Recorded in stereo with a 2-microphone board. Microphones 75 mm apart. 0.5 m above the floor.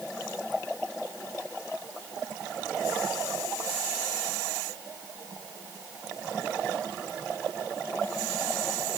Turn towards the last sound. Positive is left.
No sound to turn to.